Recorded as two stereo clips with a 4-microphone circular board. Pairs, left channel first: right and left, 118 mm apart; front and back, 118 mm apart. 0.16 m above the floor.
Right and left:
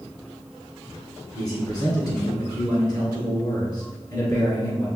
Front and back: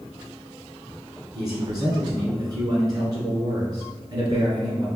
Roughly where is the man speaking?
Behind right.